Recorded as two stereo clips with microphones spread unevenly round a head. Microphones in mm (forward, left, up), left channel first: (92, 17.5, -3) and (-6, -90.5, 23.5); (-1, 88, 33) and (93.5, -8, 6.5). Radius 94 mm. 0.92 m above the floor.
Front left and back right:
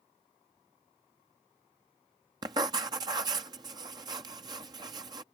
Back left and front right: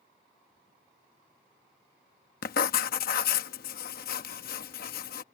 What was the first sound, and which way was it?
Writing, 155° left.